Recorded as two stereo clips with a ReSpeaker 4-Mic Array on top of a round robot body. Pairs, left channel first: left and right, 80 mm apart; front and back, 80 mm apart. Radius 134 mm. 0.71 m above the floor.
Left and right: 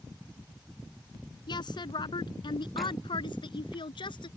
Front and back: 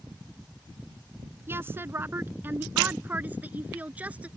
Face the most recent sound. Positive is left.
turn(degrees=110)